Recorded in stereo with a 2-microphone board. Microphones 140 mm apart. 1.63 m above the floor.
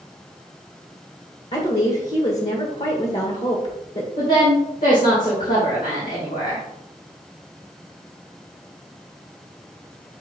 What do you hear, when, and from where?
1.5 s a woman speaking: 55° left (ahead or behind), 1.4 m
4.2 s a woman speaking: 75° left (ahead or behind), 2 m